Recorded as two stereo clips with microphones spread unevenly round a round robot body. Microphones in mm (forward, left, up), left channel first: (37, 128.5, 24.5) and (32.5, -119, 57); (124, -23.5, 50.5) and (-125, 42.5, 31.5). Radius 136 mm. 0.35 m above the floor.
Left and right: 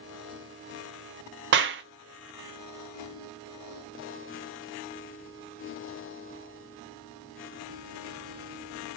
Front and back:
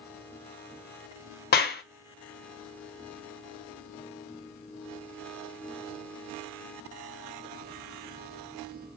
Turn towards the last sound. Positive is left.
turn(degrees=-60)